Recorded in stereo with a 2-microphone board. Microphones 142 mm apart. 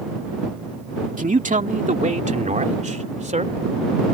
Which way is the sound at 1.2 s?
65° right (ahead or behind).